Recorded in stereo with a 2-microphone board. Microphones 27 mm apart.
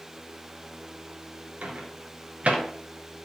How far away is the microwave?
About 1.6 m.